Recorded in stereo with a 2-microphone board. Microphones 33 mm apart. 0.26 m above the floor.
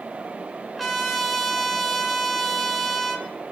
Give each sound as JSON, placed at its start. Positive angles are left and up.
{"t": 0.8, "sound": "a trumpet", "side_deg": 0, "distance_m": 1.9}